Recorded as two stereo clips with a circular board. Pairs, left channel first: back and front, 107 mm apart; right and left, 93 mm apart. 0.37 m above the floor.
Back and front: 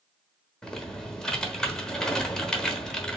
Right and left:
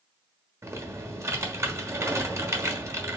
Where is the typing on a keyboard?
105° left, 1.2 m.